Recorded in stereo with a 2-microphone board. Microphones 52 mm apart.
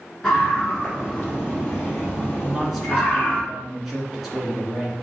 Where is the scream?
10° left (ahead or behind), 2 m; by 3.4 s 30° left (ahead or behind), 3.5 m.